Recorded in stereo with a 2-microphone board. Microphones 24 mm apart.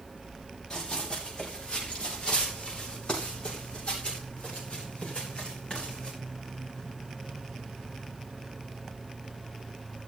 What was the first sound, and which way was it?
Running footsteps, 30° left (ahead or behind).